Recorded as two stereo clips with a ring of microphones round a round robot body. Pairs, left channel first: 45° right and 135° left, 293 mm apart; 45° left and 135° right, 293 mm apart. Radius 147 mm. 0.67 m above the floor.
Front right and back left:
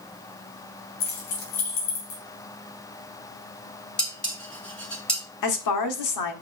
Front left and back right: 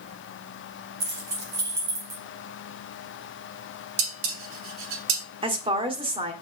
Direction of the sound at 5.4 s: 65° right.